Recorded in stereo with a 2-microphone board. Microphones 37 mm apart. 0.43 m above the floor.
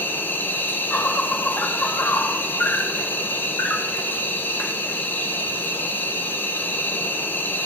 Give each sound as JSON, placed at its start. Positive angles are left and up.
{"t": 0.0, "sound": "an insect", "side_deg": 60, "distance_m": 1.0}